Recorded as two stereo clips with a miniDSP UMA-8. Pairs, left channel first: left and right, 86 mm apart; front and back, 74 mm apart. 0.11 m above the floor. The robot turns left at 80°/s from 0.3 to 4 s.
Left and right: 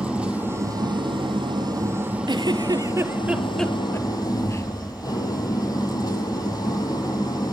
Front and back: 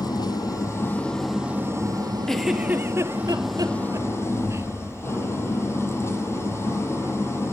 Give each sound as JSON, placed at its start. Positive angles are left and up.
{"t": 0.0, "sound": "an engine running", "azimuth_deg": -10, "distance_m": 3.0}
{"t": 2.3, "sound": "a giggle", "azimuth_deg": -80, "distance_m": 1.0}